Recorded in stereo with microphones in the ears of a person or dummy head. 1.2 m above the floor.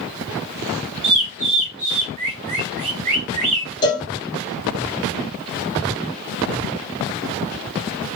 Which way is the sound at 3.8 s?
20° left (ahead or behind).